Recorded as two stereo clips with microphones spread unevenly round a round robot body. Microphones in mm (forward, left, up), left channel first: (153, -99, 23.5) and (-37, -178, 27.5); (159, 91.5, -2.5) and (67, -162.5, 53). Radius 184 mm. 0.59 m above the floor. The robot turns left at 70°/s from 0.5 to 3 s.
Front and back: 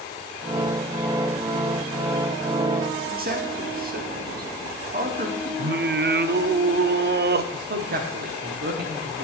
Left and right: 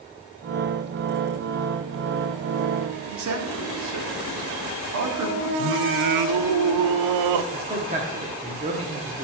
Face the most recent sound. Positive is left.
turn(degrees=180)